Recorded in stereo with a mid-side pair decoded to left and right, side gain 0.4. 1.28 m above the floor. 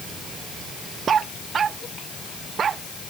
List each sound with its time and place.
Only background noise.